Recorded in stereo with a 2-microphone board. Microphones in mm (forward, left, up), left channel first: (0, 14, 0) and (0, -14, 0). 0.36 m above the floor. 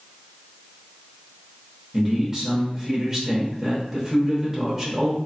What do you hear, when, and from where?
1.9 s a man speaking: 15° right (ahead or behind), 0.9 m